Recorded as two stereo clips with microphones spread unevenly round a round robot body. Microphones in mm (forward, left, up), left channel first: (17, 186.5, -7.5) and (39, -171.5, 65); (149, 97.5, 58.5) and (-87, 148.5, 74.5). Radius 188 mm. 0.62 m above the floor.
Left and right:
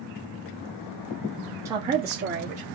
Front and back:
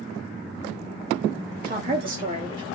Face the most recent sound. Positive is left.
turn(degrees=-135)